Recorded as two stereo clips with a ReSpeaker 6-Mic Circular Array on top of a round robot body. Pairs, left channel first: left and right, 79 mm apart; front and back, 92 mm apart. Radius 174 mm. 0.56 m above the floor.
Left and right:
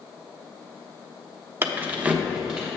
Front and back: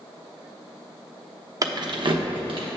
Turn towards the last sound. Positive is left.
turn(degrees=-170)